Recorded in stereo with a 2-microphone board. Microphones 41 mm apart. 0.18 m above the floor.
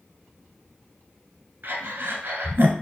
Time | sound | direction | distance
1.6 | breathing | 60° right (ahead or behind) | 1.1 m